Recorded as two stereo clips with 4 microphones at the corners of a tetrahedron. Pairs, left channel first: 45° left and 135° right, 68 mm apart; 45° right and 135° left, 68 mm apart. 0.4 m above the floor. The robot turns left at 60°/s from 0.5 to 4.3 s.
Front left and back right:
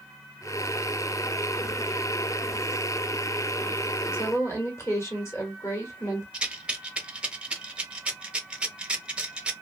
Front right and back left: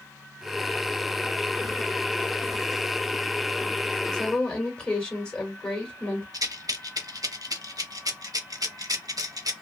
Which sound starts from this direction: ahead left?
A woman speaking, at 4.1 s.